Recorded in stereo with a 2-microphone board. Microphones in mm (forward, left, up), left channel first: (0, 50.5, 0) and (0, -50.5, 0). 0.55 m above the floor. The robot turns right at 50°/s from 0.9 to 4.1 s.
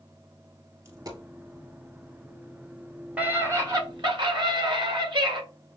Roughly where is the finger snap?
I don't hear a finger snap.